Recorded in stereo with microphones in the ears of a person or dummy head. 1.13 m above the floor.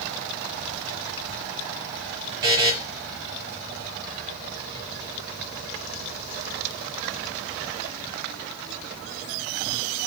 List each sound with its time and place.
2.4 s a buzzer: 25° right (ahead or behind), 1.0 m